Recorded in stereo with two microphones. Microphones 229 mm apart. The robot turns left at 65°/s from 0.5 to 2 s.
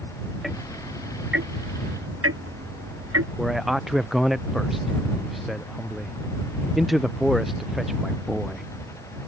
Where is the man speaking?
Centre (ahead or behind).